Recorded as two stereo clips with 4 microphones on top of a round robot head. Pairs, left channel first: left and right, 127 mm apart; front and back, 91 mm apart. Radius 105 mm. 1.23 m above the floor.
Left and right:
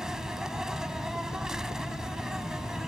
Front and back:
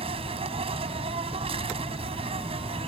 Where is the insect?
175° right.